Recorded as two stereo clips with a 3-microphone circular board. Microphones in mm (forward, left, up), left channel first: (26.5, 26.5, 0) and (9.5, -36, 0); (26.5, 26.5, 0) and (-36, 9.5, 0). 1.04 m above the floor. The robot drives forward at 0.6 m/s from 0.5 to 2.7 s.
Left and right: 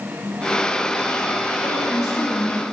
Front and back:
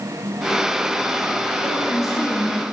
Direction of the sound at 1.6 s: 30° left.